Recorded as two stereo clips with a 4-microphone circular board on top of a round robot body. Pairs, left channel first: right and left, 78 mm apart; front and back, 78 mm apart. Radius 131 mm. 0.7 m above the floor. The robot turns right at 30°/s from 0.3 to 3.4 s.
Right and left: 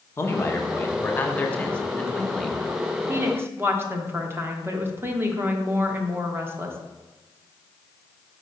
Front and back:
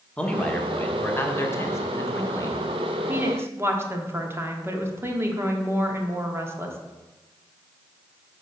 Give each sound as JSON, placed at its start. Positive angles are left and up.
{"t": 0.2, "sound": "a man speaking", "azimuth_deg": -65, "distance_m": 1.1}
{"t": 3.1, "sound": "a woman speaking", "azimuth_deg": 130, "distance_m": 1.2}